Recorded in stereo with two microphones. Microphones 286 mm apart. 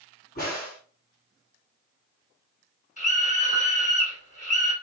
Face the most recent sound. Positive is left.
turn(degrees=25)  # may be behind; listen again after turning